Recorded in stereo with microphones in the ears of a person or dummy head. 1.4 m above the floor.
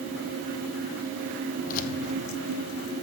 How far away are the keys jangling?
About 0.9 m.